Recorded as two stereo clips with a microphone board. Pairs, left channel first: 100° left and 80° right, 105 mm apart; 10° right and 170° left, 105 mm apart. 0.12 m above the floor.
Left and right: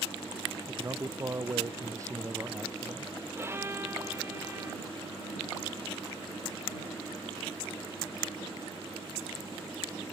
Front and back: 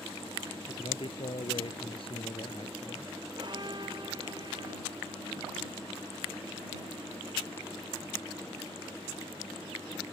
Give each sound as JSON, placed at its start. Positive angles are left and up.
{"t": 0.7, "sound": "a man speaking", "azimuth_deg": -25}
{"t": 3.4, "sound": "a violin", "azimuth_deg": -145}